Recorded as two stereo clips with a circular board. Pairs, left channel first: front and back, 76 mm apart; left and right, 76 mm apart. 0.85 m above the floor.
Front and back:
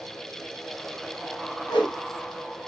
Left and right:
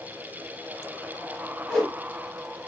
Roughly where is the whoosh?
Ahead.